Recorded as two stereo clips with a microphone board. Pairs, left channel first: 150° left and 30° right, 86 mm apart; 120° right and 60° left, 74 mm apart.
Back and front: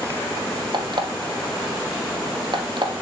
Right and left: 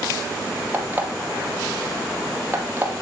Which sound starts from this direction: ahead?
An alarm clock, at 0.7 s.